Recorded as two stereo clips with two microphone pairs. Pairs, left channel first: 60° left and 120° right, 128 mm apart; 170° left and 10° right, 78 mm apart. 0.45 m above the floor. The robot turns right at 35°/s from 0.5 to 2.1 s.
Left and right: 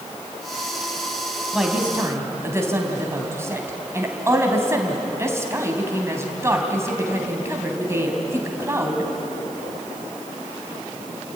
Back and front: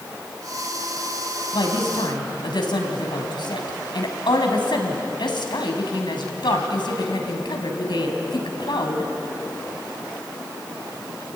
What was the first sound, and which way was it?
A woman speaking, 155° left.